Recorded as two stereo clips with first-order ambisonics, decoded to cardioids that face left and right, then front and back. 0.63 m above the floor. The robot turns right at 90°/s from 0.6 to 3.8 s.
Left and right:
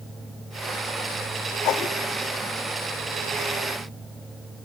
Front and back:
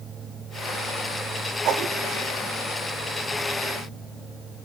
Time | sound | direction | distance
1.6 | a whoosh | 130° left | 0.7 m